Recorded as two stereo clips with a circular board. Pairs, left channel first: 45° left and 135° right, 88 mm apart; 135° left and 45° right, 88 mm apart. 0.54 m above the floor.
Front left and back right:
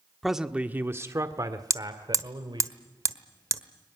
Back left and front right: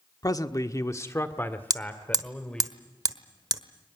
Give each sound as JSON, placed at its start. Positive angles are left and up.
{"t": 0.2, "sound": "a man speaking", "azimuth_deg": 135, "distance_m": 1.2}
{"t": 1.7, "sound": "hammering", "azimuth_deg": -85, "distance_m": 1.2}